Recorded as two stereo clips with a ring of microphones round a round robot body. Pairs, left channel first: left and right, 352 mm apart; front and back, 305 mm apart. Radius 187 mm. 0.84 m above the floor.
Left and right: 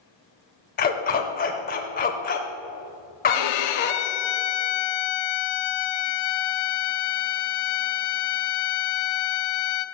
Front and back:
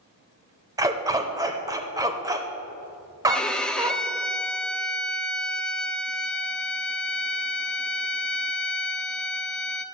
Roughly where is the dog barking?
Behind left.